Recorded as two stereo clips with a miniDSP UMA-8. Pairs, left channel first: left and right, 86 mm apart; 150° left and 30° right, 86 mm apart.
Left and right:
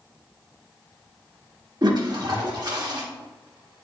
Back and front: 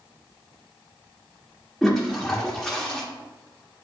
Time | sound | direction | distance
1.8 | a toilet flushing | 125° right | 1.5 m